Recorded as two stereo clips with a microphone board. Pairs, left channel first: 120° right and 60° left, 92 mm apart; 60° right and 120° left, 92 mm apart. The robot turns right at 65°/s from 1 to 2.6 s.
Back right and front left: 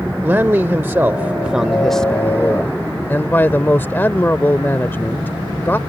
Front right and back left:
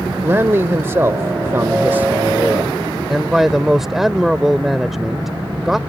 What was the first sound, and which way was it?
A man speaking, 100° left.